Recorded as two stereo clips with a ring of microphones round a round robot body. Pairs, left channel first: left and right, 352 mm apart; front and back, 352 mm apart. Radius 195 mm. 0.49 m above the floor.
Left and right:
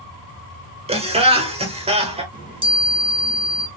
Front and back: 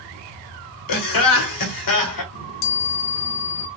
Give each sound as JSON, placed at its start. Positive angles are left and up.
{"t": 0.9, "sound": "laughter", "azimuth_deg": -15, "distance_m": 1.7}
{"t": 2.3, "sound": "a chime", "azimuth_deg": -15, "distance_m": 1.4}